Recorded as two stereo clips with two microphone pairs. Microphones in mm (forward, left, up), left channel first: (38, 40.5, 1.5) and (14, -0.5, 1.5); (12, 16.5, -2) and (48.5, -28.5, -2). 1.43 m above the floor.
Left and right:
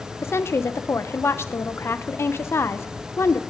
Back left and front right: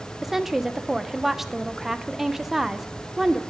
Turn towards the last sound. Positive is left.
turn(degrees=30)